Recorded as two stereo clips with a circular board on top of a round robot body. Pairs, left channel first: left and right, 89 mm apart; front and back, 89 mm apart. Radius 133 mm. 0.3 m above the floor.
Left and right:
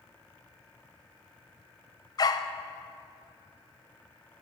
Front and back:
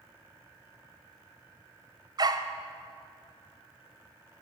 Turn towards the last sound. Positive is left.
turn(degrees=135)